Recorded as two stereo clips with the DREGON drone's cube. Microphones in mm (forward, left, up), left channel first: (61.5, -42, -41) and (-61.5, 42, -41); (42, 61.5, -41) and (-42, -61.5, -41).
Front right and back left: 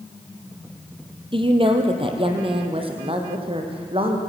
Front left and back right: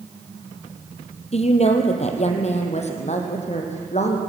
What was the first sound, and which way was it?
A woman speaking, 95° left.